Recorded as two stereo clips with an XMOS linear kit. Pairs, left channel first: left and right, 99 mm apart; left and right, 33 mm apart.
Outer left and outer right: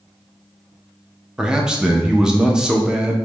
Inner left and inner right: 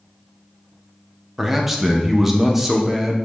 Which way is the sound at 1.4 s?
5° right (ahead or behind).